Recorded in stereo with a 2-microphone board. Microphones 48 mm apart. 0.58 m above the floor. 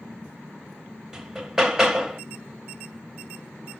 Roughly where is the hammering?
Centre.